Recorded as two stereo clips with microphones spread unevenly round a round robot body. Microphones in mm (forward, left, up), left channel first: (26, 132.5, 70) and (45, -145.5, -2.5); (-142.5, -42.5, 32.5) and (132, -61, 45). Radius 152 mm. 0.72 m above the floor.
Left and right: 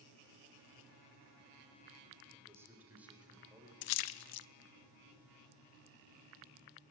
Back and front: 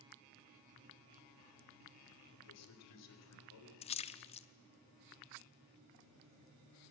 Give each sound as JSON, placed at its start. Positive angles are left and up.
{"t": 2.3, "sound": "a man speaking", "azimuth_deg": -160, "distance_m": 4.0}
{"t": 3.8, "sound": "a splash", "azimuth_deg": 105, "distance_m": 0.6}